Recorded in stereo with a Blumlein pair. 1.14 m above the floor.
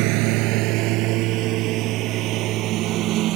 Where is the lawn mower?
45° right; by 3.4 s 35° right.